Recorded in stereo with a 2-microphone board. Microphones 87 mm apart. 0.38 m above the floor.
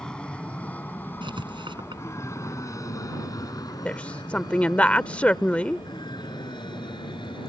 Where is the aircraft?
10° left (ahead or behind); by 7.5 s 65° left (ahead or behind).